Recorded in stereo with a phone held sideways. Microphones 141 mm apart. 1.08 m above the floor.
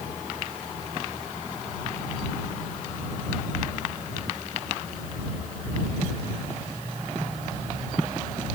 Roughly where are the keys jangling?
I don't hear keys jangling.